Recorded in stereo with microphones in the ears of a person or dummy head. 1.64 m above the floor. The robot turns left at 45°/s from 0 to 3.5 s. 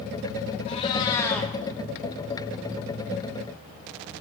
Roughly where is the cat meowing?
Ahead left.